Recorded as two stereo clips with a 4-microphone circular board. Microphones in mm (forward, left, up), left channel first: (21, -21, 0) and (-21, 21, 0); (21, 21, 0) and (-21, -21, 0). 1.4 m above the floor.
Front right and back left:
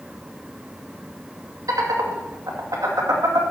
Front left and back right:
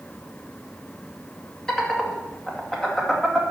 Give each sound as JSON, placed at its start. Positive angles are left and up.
{"t": 1.7, "sound": "laughter", "azimuth_deg": 125, "distance_m": 2.0}